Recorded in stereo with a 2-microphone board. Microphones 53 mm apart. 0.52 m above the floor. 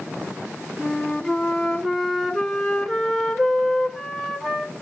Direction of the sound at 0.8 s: 5° right (ahead or behind).